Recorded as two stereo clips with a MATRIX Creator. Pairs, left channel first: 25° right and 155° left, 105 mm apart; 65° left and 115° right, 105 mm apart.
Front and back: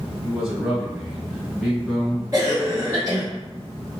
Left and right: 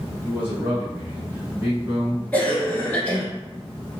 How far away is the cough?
About 1.4 m.